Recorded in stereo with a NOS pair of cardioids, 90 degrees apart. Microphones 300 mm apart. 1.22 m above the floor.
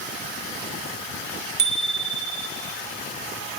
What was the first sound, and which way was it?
A bicycle bell, 35° right.